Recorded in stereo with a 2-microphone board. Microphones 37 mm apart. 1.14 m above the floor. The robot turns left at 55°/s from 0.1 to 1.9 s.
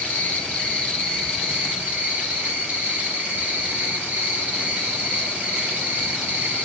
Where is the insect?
55° left, 2.5 m; by 6.7 s 45° right, 2.5 m.